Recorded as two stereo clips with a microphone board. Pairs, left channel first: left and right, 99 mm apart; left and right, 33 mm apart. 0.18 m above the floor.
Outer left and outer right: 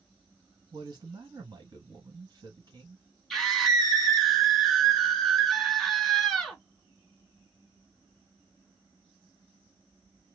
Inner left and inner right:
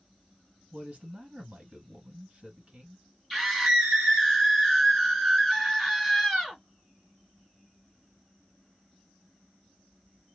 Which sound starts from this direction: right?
A man speaking, at 0.7 s.